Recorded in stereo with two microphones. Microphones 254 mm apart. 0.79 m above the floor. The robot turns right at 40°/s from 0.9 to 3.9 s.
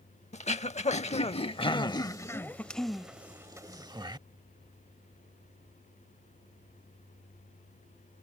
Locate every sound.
0.3 s throat clearing: 30° left (ahead or behind); by 4.2 s 15° right (ahead or behind)